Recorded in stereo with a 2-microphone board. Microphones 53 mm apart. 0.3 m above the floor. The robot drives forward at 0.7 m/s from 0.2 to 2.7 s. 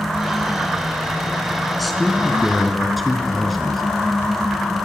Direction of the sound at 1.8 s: Centre (ahead or behind).